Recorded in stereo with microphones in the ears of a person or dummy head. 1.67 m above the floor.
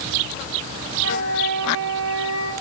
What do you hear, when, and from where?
0.9 s a flute: 85° right, 9.5 m